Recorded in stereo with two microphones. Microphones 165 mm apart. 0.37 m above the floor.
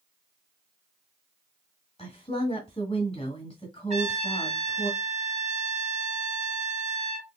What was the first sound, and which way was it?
A woman speaking, 30° left (ahead or behind).